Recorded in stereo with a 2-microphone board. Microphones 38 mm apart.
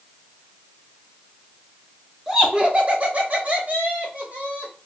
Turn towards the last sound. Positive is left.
turn(degrees=-40)  # may be behind; listen again after turning